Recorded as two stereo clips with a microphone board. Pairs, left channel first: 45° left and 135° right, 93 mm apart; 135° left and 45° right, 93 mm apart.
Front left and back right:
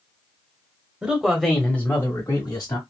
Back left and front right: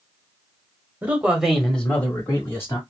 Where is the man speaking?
80° right, 1.1 m; by 2.8 s 85° left, 1.6 m.